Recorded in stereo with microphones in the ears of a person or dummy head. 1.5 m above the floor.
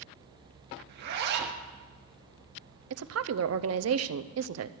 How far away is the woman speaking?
About 0.6 m.